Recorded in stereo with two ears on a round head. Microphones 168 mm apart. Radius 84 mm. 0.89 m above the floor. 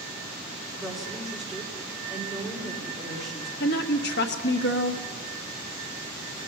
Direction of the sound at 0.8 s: Centre (ahead or behind).